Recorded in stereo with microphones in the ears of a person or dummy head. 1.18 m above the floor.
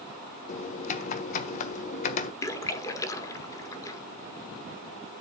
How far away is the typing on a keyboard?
About 1.3 m.